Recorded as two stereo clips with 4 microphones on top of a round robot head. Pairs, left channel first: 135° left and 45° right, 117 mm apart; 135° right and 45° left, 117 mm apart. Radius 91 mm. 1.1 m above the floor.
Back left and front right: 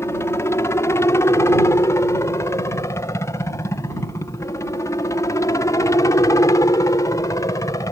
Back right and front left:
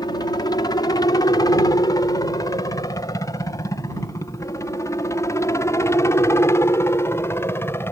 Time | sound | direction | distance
0.0 | a helicopter | 170° right | ?